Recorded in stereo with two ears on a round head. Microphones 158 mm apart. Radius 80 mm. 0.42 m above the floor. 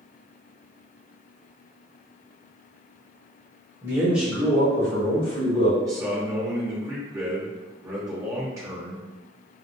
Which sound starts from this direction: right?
A man speaking, at 3.8 s.